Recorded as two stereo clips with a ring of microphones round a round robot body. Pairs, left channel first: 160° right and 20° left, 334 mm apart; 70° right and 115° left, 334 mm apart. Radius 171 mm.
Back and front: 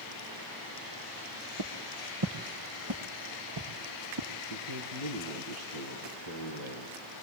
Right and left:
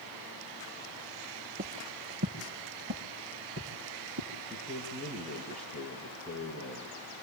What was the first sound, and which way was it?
Footsteps, 50° left.